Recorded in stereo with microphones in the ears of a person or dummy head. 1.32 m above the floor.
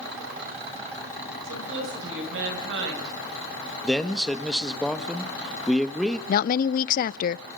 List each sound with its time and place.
1.4 s a woman speaking: 60° right (ahead or behind), 7.5 m
3.8 s a man speaking: 5° left (ahead or behind), 1.7 m
6.3 s a woman speaking: 55° left (ahead or behind), 0.6 m